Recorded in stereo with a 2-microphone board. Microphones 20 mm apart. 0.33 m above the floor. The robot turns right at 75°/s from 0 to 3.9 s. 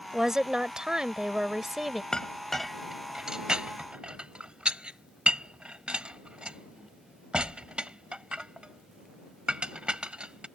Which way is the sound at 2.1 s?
45° left (ahead or behind).